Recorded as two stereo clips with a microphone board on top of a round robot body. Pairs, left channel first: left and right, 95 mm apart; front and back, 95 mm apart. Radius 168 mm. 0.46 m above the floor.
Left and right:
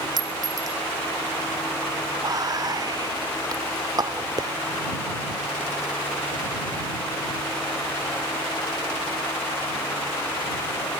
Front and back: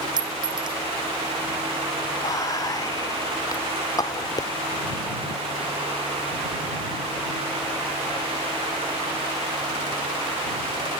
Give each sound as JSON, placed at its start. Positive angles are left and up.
{"t": 0.2, "sound": "a clink", "azimuth_deg": -140}
{"t": 2.2, "sound": "whispering", "azimuth_deg": -45}